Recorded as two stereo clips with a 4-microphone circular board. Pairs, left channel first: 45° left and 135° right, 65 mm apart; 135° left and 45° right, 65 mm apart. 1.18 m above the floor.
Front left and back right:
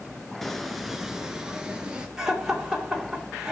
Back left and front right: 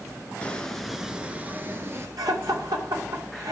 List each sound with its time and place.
0.4 s footsteps: 125° left, 1.1 m; by 2.1 s 65° right, 1.5 m
2.2 s laughter: 55° right, 2.5 m